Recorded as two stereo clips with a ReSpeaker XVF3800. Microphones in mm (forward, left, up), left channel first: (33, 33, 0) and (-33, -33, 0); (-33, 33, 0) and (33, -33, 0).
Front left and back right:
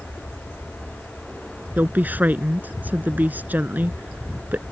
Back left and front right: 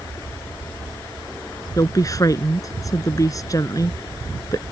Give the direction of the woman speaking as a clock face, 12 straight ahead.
7 o'clock.